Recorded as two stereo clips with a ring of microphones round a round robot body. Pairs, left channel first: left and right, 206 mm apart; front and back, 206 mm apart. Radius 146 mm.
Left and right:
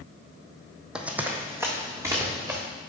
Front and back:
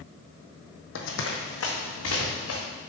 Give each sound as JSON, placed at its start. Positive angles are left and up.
{"t": 0.9, "sound": "running footsteps", "azimuth_deg": -5, "distance_m": 1.2}